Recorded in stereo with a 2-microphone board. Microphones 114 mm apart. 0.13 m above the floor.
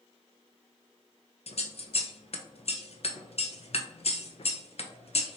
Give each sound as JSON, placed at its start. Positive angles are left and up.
{"t": 1.5, "sound": "scissors", "side_deg": 60, "distance_m": 0.5}